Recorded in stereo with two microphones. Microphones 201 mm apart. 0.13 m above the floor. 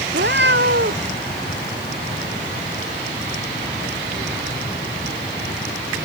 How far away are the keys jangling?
No keys jangling in this recording.